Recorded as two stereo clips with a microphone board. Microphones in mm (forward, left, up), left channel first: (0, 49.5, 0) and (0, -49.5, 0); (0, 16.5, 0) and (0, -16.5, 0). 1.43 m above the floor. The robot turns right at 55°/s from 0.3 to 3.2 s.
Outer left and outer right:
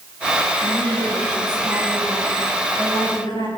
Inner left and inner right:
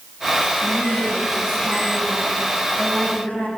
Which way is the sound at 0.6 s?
100° right.